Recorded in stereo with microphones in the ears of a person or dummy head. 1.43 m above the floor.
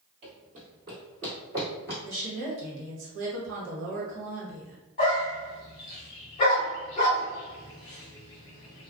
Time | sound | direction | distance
0.2 | running footsteps | 40° right (ahead or behind) | 1.8 m
2.0 | a woman speaking | 60° right (ahead or behind) | 1.0 m
5.0 | a dog barking | 25° left (ahead or behind) | 0.9 m